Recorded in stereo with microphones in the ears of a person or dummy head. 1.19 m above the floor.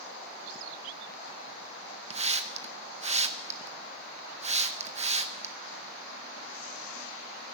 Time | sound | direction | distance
2.1 | a hiss | 30° right (ahead or behind) | 0.5 m